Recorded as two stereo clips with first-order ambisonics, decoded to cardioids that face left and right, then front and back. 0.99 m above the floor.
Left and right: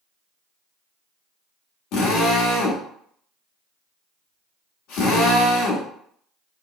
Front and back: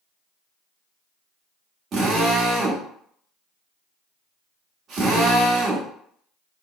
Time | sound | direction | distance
1.9 | a drill | 120° left | 1.1 m